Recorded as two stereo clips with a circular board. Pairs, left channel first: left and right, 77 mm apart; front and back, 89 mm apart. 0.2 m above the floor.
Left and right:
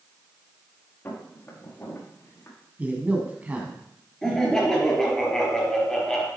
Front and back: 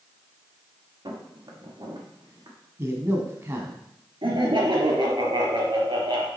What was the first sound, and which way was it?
Footsteps, 145° left.